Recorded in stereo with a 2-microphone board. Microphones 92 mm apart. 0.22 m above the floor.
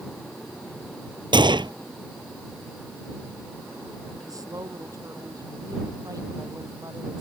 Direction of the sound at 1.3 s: 55° right (ahead or behind).